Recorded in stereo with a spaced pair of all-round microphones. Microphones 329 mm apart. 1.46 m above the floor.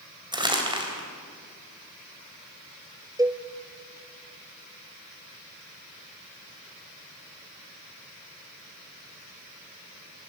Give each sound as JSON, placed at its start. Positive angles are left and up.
{"t": 0.3, "sound": "crumpling", "side_deg": -15, "distance_m": 3.5}
{"t": 3.2, "sound": "a cowbell", "side_deg": -10, "distance_m": 0.6}